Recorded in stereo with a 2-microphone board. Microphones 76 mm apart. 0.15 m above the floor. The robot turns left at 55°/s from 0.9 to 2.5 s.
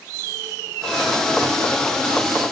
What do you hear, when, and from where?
Only background noise.